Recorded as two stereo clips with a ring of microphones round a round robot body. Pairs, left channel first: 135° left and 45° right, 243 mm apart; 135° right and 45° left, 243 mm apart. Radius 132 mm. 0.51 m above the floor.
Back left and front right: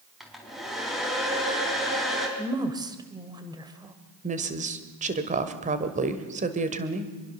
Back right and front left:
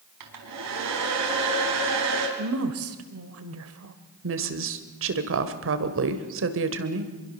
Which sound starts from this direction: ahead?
A woman speaking, at 4.2 s.